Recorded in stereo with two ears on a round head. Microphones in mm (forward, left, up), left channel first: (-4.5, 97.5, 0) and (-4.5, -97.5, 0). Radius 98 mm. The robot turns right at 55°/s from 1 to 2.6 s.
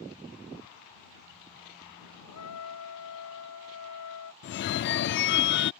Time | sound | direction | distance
2.3 | a trumpet | 85° left | ?
4.4 | a phone ringing | 50° left (ahead or behind) | ?